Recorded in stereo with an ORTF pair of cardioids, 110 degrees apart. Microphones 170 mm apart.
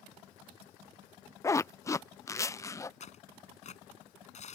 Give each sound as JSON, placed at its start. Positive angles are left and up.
{"t": 1.4, "sound": "a zipper", "azimuth_deg": 20}
{"t": 3.0, "sound": "tearing paper", "azimuth_deg": 45}